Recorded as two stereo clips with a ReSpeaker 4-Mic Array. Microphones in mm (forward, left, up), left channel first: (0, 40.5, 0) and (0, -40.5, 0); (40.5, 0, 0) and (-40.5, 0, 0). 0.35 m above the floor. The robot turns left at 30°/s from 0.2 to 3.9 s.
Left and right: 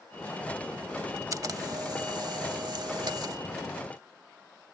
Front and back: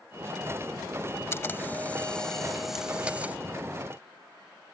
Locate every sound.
1.3 s a camera shutter: 55° right; by 3.4 s 115° right